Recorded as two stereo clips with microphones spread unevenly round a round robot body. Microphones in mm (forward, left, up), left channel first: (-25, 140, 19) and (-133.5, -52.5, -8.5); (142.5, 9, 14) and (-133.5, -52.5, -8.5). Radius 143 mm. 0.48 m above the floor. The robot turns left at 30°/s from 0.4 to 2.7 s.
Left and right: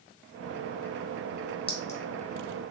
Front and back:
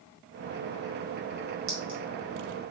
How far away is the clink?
About 1.3 m.